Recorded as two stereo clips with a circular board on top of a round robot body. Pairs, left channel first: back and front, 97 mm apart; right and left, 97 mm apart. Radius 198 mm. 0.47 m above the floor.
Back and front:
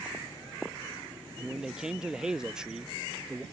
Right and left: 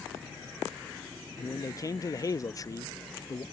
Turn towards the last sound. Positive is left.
turn(degrees=-75)